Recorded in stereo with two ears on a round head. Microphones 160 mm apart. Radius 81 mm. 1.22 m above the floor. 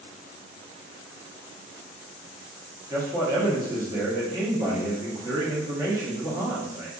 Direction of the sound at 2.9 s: 20° right (ahead or behind).